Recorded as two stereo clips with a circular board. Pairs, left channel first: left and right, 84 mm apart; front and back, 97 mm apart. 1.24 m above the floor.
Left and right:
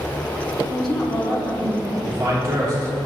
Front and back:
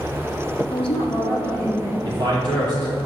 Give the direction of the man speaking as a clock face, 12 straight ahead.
5 o'clock.